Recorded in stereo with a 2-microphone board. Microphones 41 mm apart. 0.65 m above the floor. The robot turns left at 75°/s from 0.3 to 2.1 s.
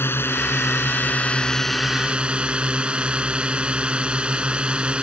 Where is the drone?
105° left; by 5.0 s 30° right.